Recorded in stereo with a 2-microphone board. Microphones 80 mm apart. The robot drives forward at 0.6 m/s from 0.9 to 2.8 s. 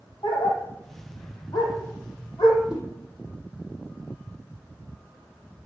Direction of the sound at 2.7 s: 15° right (ahead or behind).